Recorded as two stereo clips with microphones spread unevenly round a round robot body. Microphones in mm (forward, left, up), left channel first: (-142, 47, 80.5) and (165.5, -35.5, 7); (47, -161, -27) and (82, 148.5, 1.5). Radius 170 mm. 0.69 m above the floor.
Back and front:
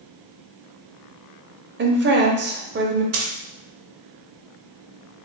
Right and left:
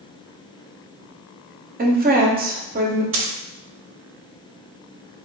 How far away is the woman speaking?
About 0.9 m.